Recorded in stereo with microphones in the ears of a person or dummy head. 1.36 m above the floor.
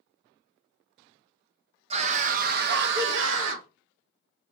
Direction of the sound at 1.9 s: 30° right (ahead or behind).